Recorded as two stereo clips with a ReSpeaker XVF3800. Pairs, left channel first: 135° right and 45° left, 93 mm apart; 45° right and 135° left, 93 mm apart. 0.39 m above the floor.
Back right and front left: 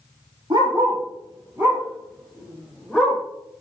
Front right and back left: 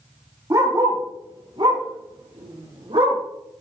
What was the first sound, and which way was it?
A dog barking, 85° left.